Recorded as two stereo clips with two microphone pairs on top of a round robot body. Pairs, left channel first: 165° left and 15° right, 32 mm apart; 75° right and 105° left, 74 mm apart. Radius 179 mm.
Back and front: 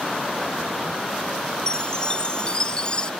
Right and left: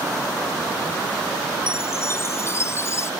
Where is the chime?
130° right.